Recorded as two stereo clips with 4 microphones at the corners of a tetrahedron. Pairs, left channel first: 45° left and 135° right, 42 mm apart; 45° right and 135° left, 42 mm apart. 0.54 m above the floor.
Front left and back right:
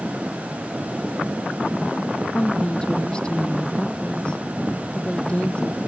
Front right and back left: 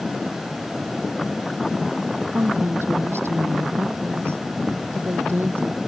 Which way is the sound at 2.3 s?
115° left.